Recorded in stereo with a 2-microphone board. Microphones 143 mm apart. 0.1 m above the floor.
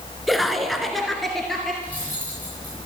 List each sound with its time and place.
0.3 s laughter: centre (ahead or behind), 1.1 m
1.8 s cutlery clinking: 10° left (ahead or behind), 8 m